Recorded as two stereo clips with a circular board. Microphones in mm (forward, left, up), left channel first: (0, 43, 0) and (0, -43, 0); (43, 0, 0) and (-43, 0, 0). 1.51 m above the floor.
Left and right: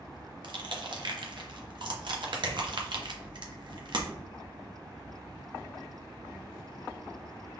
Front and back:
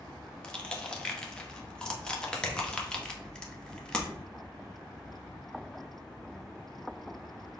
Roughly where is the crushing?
Right.